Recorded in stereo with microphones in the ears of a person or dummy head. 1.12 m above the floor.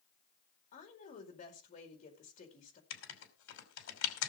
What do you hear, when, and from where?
0.7 s a woman speaking: 35° left (ahead or behind), 4.5 m
2.9 s writing: 80° left, 2.5 m